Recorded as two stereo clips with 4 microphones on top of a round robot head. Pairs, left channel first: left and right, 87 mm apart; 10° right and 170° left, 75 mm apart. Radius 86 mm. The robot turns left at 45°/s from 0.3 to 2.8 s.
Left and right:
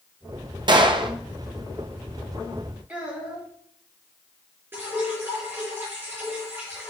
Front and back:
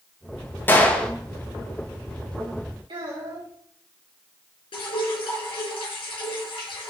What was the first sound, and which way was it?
A gunshot, 70° right.